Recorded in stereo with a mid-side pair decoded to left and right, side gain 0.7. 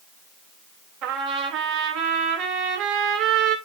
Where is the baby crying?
I don't hear a baby crying.